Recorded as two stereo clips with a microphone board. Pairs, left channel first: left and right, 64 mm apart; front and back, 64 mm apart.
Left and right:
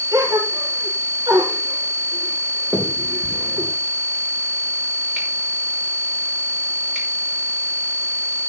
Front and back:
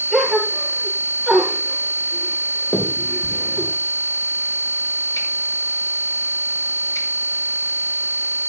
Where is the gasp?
85° right, 5 m.